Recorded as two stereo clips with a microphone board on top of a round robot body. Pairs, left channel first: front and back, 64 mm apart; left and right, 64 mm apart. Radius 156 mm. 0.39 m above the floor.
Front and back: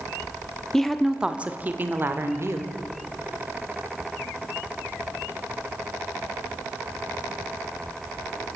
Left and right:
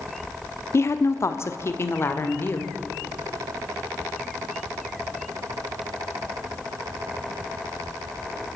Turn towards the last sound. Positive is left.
turn(degrees=140)